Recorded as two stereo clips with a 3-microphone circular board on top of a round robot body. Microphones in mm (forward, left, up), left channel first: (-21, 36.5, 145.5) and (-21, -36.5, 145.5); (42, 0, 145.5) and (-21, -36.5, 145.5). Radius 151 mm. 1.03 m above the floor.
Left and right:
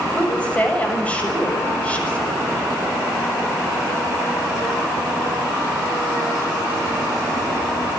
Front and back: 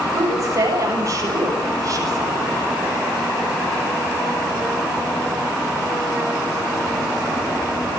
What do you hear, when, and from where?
0.1 s a woman speaking: 165° left, 7 m